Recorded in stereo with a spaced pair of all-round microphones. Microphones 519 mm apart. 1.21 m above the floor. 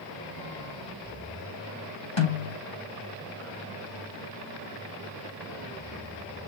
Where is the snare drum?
80° left, 5.5 m.